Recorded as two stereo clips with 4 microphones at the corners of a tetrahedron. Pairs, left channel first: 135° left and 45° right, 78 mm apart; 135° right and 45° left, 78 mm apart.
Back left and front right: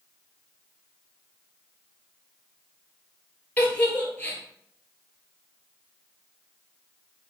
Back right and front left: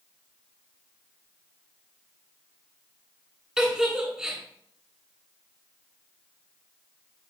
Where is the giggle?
115° left, 1.4 m.